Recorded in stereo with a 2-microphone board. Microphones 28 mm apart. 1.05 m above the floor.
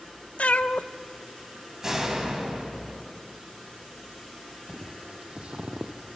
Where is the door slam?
25° right (ahead or behind), 4.5 m.